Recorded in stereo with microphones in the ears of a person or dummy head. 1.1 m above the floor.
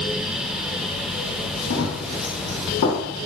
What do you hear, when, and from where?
1.7 s running footsteps: 65° left (ahead or behind), 2.5 m; by 3.0 s 55° left (ahead or behind), 3 m